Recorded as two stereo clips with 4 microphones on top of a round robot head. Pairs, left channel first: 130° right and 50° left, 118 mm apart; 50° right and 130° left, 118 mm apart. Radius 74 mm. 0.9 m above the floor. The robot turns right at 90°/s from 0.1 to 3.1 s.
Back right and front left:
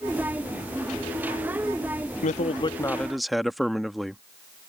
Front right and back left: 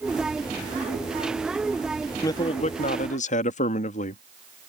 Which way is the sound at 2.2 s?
115° right.